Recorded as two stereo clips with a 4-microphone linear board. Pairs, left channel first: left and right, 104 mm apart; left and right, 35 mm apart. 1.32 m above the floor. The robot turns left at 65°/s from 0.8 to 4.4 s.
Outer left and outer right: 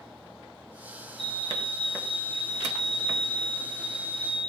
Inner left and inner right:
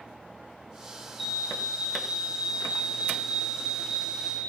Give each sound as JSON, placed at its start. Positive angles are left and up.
{"t": 1.2, "sound": "a fire alarm", "azimuth_deg": 5, "distance_m": 4.0}